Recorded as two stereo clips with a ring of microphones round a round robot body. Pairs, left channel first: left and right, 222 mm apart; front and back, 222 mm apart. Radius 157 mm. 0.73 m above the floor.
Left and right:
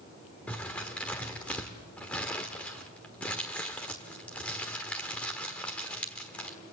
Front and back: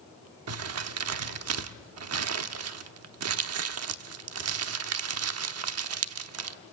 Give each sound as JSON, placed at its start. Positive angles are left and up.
{"t": 0.5, "sound": "crumpling", "azimuth_deg": 175, "distance_m": 1.0}